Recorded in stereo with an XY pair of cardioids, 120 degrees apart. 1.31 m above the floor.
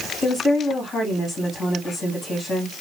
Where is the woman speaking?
35° left, 2 m.